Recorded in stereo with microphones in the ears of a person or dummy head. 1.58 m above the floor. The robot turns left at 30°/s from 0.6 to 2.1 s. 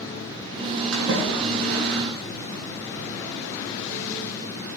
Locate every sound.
0.9 s a splash: 80° right, 8 m; by 2.1 s 50° right (ahead or behind), 8 m